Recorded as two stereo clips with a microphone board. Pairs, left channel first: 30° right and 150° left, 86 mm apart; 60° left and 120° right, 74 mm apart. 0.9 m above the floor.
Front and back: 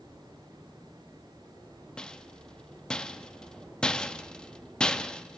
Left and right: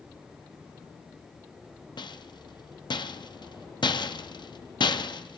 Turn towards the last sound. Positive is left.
turn(degrees=50)